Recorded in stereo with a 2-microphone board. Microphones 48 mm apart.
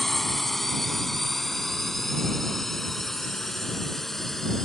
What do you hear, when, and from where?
0.0 s a drone: 5° left (ahead or behind); by 4.7 s 10° left (ahead or behind)